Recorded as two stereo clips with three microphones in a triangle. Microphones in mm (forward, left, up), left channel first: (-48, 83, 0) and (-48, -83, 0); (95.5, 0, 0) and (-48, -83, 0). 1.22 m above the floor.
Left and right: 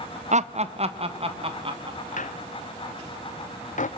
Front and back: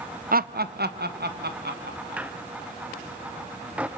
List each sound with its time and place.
0.3 s laughter: 130° right, 0.6 m; by 2.3 s 150° right, 2.5 m
2.2 s a squeak: 130° left, 0.6 m